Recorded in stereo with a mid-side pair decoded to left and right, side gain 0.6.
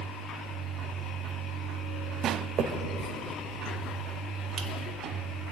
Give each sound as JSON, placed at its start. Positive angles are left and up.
{"t": 2.6, "sound": "a finger snap", "azimuth_deg": -60, "distance_m": 1.7}